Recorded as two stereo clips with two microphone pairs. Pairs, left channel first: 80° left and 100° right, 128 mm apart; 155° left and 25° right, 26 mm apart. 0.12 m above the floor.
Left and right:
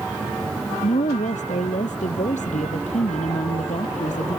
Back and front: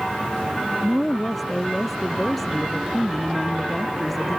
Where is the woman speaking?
65° left.